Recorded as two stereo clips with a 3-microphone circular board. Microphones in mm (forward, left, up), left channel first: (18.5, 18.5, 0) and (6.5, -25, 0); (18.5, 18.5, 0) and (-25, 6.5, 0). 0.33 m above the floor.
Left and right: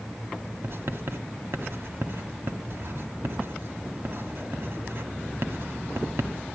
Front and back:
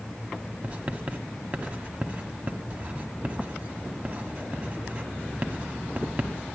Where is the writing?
110° right, 1.5 m.